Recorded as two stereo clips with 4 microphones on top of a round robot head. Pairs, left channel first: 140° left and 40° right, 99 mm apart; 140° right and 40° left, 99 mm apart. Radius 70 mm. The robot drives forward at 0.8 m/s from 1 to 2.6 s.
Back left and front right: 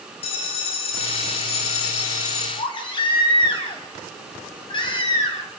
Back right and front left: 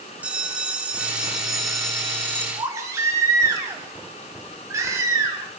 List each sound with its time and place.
0.2 s a bell: 115° left, 2 m; by 2.5 s 140° left, 3 m
2.6 s a baby crying: 100° left, 3.5 m